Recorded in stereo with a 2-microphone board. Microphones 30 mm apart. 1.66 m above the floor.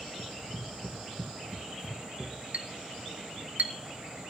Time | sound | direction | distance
0.2 | running footsteps | 45° right (ahead or behind) | 2 m
2.5 | a clink | 55° right (ahead or behind) | 1.5 m